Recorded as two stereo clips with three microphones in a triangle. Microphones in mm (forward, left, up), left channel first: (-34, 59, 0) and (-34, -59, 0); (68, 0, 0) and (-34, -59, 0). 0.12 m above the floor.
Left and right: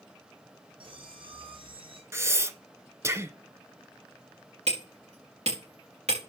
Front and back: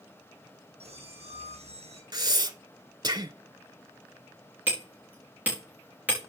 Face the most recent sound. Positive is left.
turn(degrees=-75)